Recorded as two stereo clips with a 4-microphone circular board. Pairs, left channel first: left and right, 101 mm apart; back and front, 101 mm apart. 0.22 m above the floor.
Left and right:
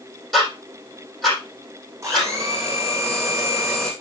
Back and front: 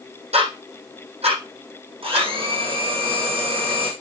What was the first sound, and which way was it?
Ticking, straight ahead.